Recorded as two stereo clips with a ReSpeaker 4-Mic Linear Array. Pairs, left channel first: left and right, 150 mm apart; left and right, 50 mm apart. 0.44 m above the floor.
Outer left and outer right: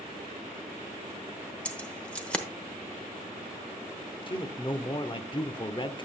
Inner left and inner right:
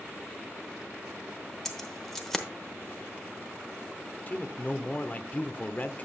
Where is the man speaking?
35° left (ahead or behind), 0.8 m.